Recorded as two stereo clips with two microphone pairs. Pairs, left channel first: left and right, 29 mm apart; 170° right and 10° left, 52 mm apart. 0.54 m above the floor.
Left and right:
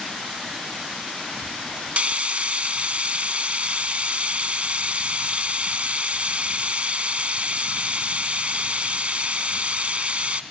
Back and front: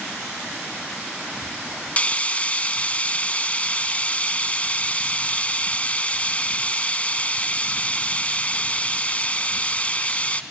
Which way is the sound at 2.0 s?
115° right.